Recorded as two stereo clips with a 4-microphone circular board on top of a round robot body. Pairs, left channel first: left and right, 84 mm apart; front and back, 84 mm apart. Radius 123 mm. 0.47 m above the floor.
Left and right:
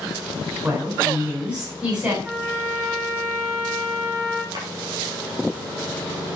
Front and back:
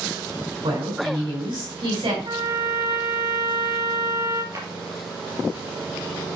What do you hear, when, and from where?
0.6 s a woman speaking: 160° right, 5.5 m
2.2 s a trumpet: 165° right, 5 m
4.5 s a drawer: 130° right, 4.5 m